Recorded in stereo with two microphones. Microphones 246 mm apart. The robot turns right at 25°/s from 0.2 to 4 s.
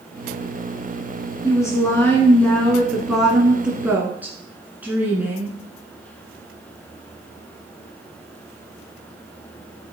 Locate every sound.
1.4 s a woman speaking: 15° left (ahead or behind), 1.3 m; by 5.6 s 5° right (ahead or behind), 1.3 m